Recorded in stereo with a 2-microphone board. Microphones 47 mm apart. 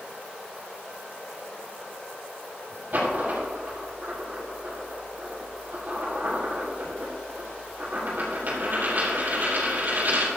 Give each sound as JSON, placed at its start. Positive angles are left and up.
{"t": 2.9, "sound": "a dropped coin", "side_deg": -45, "distance_m": 5.0}